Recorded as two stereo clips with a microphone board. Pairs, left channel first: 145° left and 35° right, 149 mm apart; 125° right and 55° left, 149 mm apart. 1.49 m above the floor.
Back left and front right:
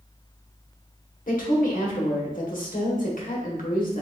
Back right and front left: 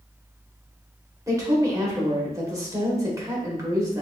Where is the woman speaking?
125° left, 1.1 m.